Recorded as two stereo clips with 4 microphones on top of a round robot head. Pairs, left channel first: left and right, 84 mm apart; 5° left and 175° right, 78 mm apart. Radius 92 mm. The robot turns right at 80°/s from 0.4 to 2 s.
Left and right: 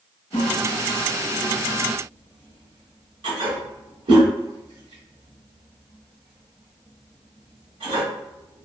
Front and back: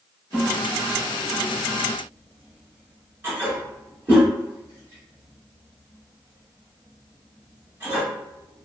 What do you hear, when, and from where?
0.3 s a toilet flushing: 120° left, 1.7 m; by 8.7 s 115° right, 1.7 m